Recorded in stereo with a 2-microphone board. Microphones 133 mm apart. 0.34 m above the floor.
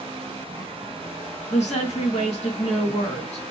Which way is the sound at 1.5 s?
60° left (ahead or behind).